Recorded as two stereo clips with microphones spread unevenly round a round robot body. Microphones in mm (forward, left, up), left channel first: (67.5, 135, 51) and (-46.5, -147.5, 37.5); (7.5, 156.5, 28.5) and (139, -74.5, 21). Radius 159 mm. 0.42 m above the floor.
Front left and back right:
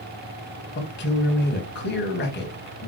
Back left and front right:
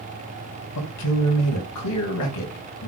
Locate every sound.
0.8 s a man speaking: 125° left, 3.5 m